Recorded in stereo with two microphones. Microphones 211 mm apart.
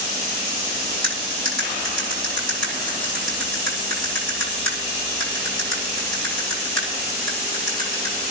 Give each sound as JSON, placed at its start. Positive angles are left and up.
{"t": 1.0, "sound": "cutlery clinking", "side_deg": -85, "distance_m": 7.5}